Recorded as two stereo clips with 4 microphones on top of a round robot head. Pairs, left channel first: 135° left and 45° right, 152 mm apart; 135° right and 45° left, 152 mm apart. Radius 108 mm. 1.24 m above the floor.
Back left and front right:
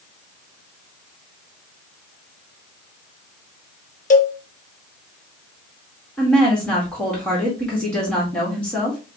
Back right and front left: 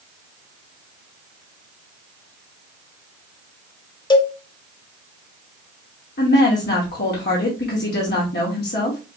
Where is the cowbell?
165° left, 0.8 m.